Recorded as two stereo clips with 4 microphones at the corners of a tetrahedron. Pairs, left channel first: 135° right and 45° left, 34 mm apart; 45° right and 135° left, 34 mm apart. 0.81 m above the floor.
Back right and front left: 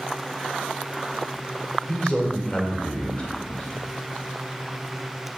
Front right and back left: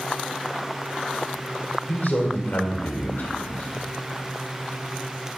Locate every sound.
1.9 s a man speaking: 75° right, 2 m